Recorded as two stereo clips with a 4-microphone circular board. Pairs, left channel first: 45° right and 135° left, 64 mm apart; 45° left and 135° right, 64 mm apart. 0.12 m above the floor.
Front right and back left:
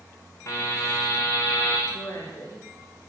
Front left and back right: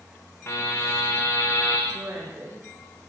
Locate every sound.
0.5 s a buzzer: 5° right, 9.5 m
1.9 s a woman speaking: 80° right, 9 m